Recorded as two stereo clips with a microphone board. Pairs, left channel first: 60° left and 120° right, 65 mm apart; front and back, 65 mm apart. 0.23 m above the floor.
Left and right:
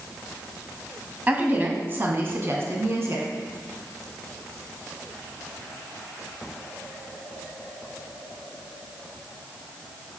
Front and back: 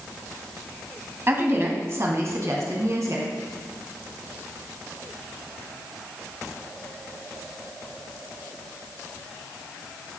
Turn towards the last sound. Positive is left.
turn(degrees=-160)